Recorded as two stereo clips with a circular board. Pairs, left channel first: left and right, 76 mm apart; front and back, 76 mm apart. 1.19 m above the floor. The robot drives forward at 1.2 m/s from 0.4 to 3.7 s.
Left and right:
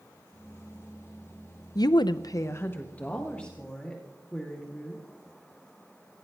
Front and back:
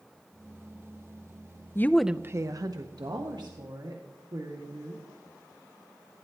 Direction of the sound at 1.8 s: 55° left.